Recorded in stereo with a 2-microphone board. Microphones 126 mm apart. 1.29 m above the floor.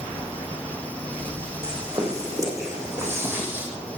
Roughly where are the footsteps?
Right.